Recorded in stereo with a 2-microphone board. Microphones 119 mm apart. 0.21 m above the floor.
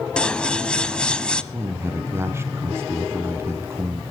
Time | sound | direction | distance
0.2 | scissors | 10° left (ahead or behind) | 0.8 m
1.5 | a man speaking | 25° right (ahead or behind) | 2 m